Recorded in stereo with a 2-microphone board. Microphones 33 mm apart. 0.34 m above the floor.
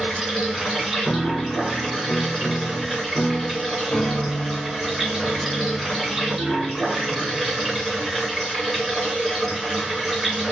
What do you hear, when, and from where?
0.0 s running water: 5° right (ahead or behind), 1.7 m
1.1 s a piano: 30° left (ahead or behind), 0.5 m